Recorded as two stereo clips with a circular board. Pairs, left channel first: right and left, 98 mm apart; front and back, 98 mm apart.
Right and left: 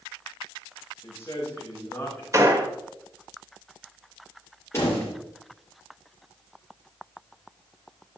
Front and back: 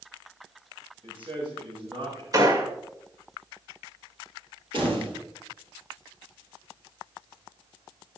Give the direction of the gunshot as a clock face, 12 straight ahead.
7 o'clock.